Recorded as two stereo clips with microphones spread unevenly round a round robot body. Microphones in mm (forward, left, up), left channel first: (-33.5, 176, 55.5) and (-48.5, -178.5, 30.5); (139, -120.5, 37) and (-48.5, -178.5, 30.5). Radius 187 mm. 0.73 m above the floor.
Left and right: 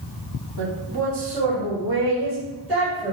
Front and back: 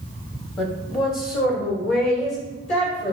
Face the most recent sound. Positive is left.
turn(degrees=-5)